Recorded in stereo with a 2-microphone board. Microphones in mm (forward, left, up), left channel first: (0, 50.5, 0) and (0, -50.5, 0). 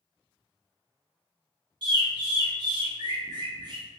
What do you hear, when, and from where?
1.8 s a bird: 45° right (ahead or behind), 0.6 m